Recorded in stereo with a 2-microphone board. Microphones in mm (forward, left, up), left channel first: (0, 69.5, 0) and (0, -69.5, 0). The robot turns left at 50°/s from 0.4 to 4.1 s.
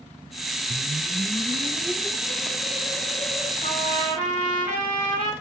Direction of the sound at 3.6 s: 60° left (ahead or behind).